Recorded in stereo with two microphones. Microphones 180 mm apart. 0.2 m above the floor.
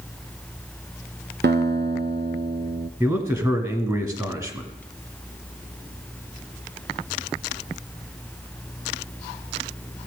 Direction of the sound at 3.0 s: 15° right (ahead or behind).